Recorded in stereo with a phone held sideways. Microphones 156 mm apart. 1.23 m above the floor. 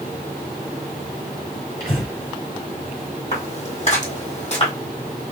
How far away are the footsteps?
About 2.0 m.